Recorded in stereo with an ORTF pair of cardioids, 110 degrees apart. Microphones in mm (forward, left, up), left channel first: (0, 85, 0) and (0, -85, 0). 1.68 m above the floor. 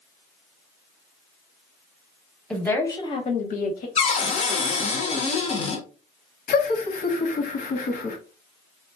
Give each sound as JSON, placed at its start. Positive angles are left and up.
{"t": 2.5, "sound": "a woman speaking", "azimuth_deg": 5, "distance_m": 1.1}
{"t": 4.0, "sound": "a cupboard door", "azimuth_deg": 40, "distance_m": 0.8}
{"t": 6.5, "sound": "laughter", "azimuth_deg": 55, "distance_m": 1.1}